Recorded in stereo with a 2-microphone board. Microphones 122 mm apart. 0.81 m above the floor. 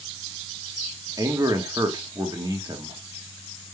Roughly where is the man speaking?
Right.